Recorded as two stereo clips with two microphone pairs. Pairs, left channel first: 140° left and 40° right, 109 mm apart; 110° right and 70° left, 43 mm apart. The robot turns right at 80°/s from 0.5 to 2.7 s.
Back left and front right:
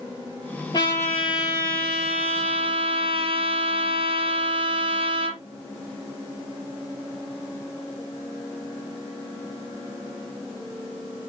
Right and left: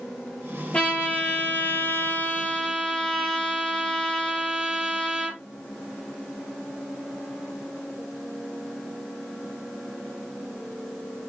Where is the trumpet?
175° right, 7 m; by 5.4 s 15° right, 7 m.